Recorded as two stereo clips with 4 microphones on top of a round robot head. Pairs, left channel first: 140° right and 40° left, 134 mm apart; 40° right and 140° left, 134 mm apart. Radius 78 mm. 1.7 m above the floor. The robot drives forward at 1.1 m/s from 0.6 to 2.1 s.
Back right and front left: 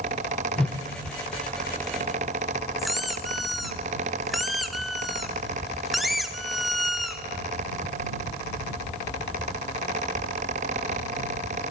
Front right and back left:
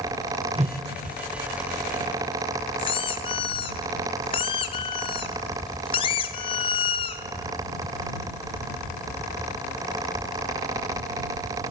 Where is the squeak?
50° right, 0.7 m.